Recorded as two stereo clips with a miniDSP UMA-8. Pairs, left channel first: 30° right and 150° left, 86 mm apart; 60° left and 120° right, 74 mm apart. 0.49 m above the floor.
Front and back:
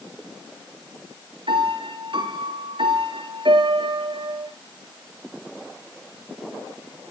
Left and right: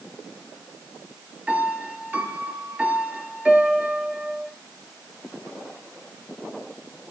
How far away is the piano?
About 2.5 m.